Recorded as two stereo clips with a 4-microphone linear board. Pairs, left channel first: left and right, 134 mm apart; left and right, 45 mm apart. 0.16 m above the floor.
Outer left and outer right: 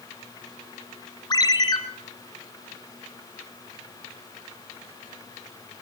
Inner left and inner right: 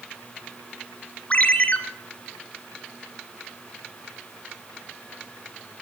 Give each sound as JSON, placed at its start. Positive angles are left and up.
{"t": 1.3, "sound": "a ringtone", "side_deg": 30, "distance_m": 1.5}